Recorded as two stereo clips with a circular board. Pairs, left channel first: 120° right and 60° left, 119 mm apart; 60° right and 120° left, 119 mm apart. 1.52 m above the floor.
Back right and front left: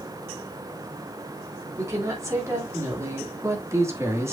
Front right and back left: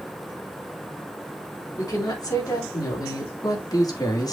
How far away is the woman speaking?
About 4.5 m.